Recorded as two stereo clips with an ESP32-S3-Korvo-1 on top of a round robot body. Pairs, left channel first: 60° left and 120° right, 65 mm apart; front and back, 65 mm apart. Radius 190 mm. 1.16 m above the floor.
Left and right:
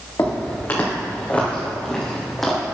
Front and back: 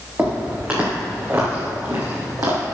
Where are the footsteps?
110° left, 3.5 m; by 2.6 s 150° left, 2.5 m.